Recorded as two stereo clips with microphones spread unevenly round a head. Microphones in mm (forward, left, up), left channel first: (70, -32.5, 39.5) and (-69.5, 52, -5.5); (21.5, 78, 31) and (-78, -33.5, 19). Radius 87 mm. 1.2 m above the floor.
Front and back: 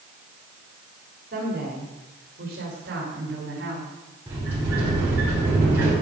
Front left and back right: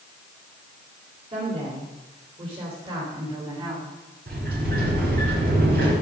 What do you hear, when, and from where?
1.3 s a woman speaking: 175° right, 4 m; by 3.9 s 165° left, 3.5 m
4.3 s a sliding door: 135° right, 5.5 m